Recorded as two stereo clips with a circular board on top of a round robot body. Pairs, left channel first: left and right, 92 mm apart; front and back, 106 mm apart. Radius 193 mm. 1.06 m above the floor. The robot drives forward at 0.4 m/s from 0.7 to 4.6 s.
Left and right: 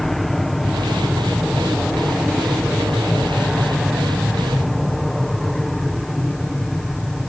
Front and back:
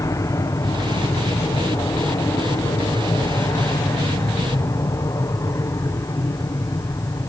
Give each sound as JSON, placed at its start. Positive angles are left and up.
{"t": 0.0, "sound": "an aircraft", "azimuth_deg": 5}